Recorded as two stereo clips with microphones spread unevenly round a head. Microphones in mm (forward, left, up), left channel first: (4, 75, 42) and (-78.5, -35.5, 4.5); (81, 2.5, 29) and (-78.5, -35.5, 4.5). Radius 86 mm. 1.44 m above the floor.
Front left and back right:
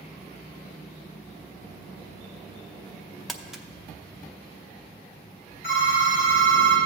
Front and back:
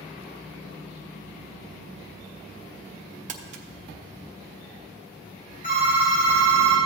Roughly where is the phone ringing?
Ahead left.